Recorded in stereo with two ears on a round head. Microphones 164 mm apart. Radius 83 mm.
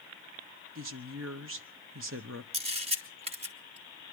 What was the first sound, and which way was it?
A woman speaking, 80° right.